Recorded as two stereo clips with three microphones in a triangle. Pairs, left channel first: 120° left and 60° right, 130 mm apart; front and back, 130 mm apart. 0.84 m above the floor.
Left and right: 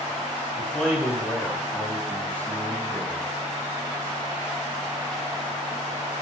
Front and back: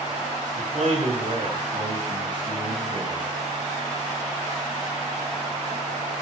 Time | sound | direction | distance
0.6 | a man speaking | 155° right | 8.5 m